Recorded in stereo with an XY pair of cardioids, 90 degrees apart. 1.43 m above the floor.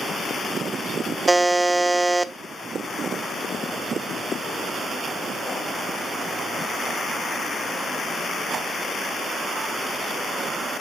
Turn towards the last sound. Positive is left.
turn(degrees=-25)